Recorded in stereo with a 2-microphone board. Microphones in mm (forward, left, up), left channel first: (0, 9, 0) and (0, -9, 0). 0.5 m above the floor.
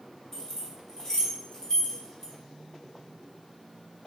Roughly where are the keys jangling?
Left.